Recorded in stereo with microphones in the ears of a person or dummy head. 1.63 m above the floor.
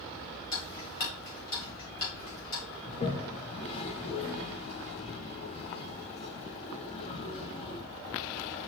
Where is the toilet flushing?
35° left (ahead or behind), 1.2 m.